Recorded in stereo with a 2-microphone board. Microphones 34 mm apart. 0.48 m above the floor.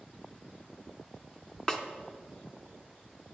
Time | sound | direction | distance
1.7 | a snare drum | 20° left (ahead or behind) | 1.0 m